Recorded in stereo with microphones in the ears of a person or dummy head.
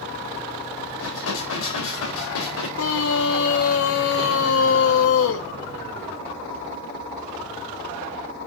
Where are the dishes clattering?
80° left, 4.5 m.